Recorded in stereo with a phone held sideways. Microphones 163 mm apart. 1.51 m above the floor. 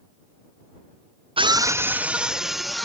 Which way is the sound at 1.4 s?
35° right (ahead or behind).